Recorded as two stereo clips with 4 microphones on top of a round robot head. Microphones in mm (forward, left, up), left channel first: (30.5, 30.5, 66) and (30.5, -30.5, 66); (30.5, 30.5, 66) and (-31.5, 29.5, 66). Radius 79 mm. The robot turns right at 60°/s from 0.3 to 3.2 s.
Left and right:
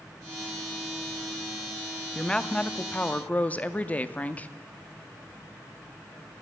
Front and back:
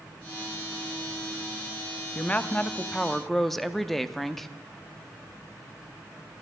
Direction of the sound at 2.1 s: 20° left.